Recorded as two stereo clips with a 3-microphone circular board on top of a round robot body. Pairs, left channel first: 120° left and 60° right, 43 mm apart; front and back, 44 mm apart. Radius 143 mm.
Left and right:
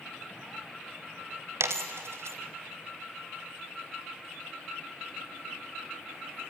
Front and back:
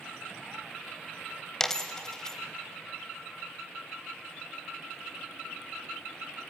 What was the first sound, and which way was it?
A dropped coin, 75° right.